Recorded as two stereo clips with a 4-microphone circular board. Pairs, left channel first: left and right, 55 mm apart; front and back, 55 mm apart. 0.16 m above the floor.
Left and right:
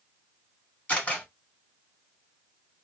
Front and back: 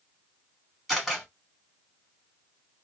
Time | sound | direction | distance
0.9 | a camera shutter | 95° left | 1.5 m